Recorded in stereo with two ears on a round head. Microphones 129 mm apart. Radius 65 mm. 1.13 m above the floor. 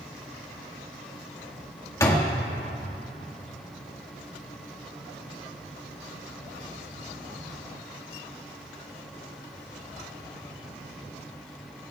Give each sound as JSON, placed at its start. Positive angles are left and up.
{"t": 2.0, "sound": "a door slam", "side_deg": 20, "distance_m": 1.5}